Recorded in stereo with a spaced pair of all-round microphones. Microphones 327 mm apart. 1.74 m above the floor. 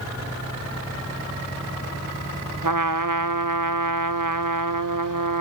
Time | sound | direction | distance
2.6 | a trumpet | 70° right (ahead or behind) | 0.9 m